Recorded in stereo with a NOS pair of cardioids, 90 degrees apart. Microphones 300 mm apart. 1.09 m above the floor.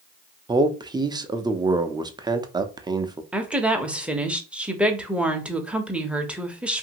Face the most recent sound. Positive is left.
turn(degrees=-5)